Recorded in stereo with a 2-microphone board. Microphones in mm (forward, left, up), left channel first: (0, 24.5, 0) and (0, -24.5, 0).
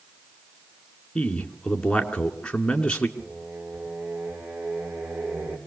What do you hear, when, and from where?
1.1 s a man speaking: 20° left (ahead or behind), 2.5 m
3.2 s singing: 40° right (ahead or behind), 7.5 m